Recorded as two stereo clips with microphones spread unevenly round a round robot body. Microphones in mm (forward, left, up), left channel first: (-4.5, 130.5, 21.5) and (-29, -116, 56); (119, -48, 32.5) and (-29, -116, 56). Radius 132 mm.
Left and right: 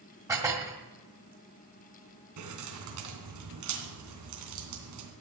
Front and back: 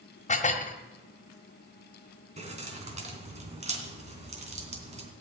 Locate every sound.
0.3 s dishes clattering: 15° right, 1.7 m
2.4 s keys jangling: 105° right, 3 m